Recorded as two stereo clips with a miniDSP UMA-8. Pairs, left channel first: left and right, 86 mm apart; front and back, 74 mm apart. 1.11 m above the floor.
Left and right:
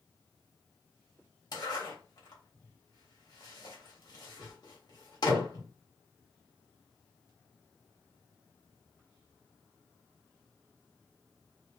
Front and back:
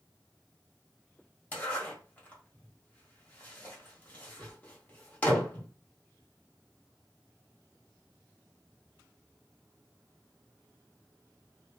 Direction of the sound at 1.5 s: 65° left.